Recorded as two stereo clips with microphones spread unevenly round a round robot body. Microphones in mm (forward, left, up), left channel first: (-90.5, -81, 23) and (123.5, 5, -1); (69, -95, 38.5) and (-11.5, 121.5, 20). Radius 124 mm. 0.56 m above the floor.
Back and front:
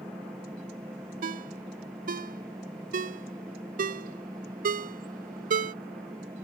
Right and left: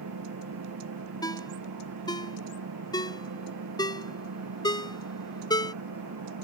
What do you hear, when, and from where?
0.0 s an engine running: 105° left
1.2 s a ringtone: straight ahead